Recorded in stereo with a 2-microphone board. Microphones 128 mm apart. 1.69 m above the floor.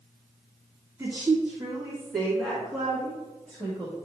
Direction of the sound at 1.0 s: 20° right (ahead or behind).